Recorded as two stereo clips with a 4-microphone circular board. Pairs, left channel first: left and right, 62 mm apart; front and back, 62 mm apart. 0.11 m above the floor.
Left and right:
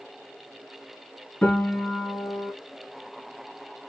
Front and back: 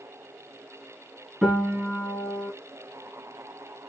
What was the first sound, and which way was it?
A piano, 130° left.